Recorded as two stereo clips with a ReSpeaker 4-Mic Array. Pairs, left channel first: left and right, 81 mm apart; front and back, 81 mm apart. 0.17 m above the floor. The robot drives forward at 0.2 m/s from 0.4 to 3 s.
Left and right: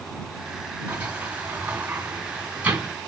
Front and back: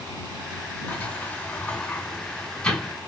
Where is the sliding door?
40° right, 1.6 m; by 2.9 s 70° right, 1.5 m.